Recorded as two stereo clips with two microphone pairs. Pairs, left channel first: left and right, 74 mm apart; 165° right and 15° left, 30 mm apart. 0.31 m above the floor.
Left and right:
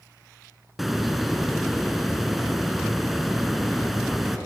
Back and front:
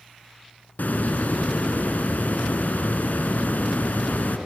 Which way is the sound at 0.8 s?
Straight behind.